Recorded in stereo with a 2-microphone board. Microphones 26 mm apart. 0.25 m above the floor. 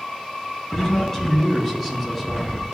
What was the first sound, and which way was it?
A man speaking, 25° left (ahead or behind).